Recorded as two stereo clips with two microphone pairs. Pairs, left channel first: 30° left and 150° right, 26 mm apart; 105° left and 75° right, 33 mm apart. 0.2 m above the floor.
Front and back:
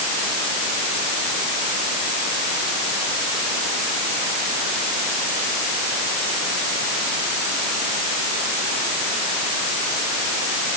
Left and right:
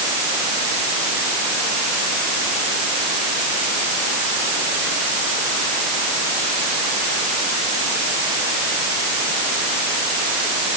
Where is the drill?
I don't hear a drill.